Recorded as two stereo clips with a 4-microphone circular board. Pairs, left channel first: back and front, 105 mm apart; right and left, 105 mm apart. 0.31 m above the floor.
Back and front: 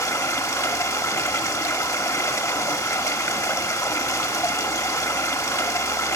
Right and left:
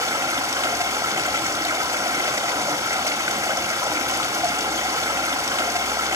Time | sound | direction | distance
0.0 | running water | 135° left | 1.3 m